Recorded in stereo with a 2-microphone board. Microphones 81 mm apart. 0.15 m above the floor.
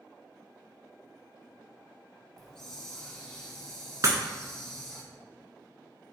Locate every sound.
2.4 s a hiss: 5° left (ahead or behind), 0.6 m
4.0 s breaking glass: 45° right (ahead or behind), 0.6 m